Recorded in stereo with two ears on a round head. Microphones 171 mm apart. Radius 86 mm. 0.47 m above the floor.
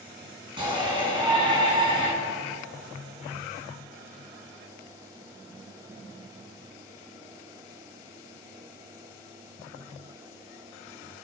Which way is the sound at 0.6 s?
25° right (ahead or behind).